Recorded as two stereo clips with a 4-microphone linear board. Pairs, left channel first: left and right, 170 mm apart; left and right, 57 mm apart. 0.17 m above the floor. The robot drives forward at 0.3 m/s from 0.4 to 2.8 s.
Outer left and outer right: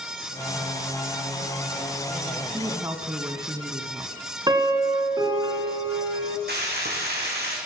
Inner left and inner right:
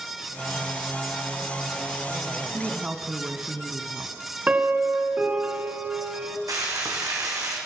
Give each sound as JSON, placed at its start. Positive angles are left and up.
{"t": 2.5, "sound": "a woman speaking", "side_deg": -20, "distance_m": 1.0}
{"t": 4.5, "sound": "a piano", "side_deg": -25, "distance_m": 1.5}
{"t": 6.5, "sound": "frying", "side_deg": -75, "distance_m": 4.0}